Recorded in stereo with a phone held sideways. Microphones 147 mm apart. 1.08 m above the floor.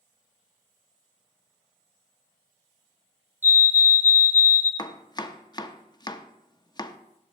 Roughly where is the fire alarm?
Centre.